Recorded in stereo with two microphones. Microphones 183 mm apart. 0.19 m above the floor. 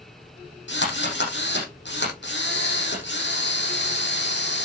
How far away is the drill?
About 7.5 m.